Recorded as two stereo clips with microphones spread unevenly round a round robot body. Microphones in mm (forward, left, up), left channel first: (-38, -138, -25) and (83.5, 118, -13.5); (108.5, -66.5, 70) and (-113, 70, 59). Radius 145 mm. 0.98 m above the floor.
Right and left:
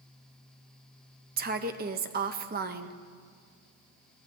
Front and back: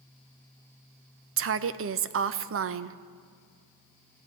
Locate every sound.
1.4 s a woman speaking: 120° left, 0.6 m